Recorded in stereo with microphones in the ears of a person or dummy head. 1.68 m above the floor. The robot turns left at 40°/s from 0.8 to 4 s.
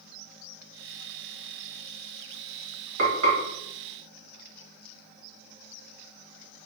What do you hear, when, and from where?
3.0 s frying: 70° right (ahead or behind), 1.4 m; by 3.4 s 65° right (ahead or behind), 1.4 m